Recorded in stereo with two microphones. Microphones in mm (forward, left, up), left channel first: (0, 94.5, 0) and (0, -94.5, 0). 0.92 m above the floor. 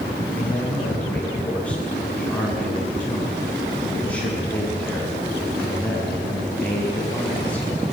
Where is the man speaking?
5° left (ahead or behind), 7.5 m.